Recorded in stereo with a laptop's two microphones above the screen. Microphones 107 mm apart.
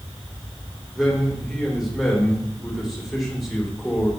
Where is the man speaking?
Centre (ahead or behind), 2.5 m.